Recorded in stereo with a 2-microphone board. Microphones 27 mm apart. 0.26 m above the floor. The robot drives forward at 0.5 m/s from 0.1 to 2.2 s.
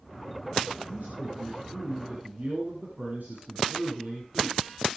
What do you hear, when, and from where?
0.9 s a man speaking: 70° right (ahead or behind), 6.5 m; by 4.7 s 65° right (ahead or behind), 7 m